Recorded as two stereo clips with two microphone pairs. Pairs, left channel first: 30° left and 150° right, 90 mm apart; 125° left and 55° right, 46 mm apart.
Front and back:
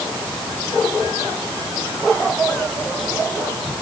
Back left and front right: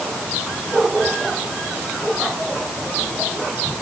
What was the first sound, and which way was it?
Only background noise.